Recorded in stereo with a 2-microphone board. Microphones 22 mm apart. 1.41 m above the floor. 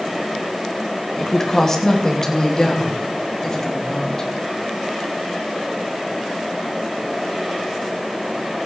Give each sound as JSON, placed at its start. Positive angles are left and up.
{"t": 1.2, "sound": "a woman speaking", "side_deg": 25, "distance_m": 2.5}